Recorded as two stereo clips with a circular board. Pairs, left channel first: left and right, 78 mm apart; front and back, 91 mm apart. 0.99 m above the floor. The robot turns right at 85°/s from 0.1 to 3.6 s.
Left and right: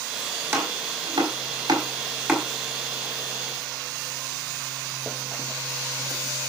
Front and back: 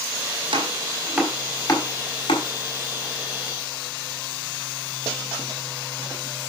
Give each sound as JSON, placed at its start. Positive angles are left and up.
{"t": 0.5, "sound": "chopping", "azimuth_deg": -155, "distance_m": 4.5}